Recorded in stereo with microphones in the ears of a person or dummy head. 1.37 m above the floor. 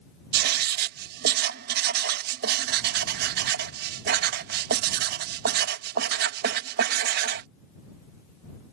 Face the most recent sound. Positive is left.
turn(degrees=-60)  # may be behind; listen again after turning